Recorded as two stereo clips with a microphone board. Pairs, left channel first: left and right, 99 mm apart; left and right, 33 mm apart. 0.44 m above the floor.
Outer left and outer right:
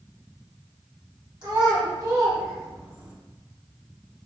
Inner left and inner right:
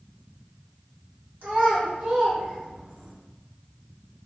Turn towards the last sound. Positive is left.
turn(degrees=-15)  # may be behind; listen again after turning